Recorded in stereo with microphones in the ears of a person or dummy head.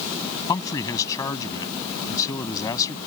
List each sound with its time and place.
0.5 s a man speaking: 25° left (ahead or behind)